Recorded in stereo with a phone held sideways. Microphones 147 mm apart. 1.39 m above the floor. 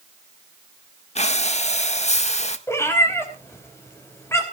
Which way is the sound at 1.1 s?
50° left (ahead or behind).